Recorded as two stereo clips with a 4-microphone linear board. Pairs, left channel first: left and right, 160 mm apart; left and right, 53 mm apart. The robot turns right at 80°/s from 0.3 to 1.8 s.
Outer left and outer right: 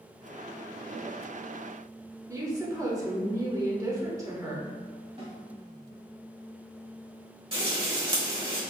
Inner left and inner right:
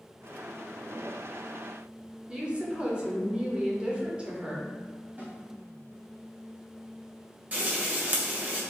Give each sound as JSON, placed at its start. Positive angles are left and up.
{"t": 2.3, "sound": "a woman speaking", "side_deg": -20, "distance_m": 0.8}
{"t": 5.2, "sound": "a snare drum", "side_deg": -40, "distance_m": 1.2}
{"t": 7.5, "sound": "frying", "side_deg": -35, "distance_m": 1.3}